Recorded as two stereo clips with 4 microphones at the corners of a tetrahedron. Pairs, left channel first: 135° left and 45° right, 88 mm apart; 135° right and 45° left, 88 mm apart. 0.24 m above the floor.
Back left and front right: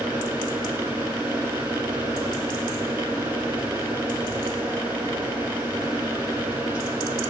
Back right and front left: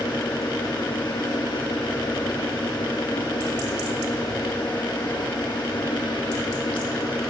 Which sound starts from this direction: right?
An engine running, at 0.0 s.